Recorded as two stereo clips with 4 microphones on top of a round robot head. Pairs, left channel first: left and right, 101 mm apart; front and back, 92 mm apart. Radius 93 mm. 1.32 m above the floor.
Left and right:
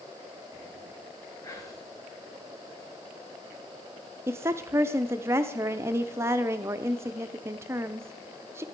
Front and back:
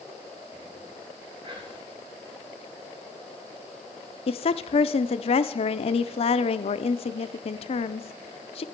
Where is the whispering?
150° left, 2.5 m.